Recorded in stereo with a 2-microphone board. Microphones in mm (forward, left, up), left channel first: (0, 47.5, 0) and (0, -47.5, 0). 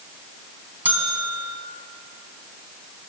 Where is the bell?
20° right (ahead or behind), 3.5 m.